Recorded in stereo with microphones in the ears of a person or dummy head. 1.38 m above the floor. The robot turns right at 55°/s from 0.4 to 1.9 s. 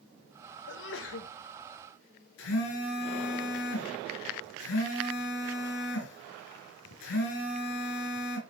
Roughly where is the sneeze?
Ahead left.